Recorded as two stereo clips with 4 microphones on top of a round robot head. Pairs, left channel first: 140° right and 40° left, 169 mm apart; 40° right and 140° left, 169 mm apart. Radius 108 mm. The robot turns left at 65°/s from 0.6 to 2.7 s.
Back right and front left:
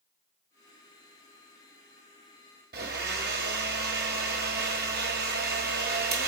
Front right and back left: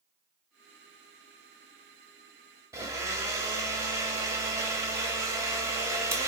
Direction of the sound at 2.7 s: 70° left.